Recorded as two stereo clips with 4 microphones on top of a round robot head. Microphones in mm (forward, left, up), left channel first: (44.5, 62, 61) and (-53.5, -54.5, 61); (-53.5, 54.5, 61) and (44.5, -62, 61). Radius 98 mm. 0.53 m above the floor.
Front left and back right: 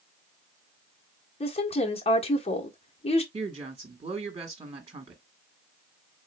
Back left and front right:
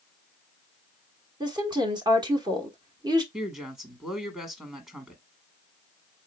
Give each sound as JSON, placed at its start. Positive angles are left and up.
{"t": 1.4, "sound": "a woman speaking", "azimuth_deg": 10, "distance_m": 1.2}
{"t": 3.3, "sound": "a woman speaking", "azimuth_deg": -125, "distance_m": 1.3}